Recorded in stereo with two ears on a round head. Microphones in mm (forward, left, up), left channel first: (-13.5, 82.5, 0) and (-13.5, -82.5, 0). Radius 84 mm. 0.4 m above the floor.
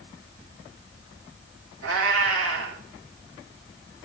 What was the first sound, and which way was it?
A cat meowing, 80° right.